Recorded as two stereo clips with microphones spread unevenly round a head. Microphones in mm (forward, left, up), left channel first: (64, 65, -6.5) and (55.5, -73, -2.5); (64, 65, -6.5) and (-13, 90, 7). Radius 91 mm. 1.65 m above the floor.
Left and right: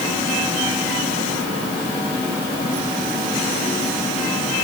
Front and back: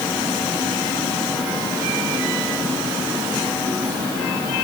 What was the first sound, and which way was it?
Only background noise.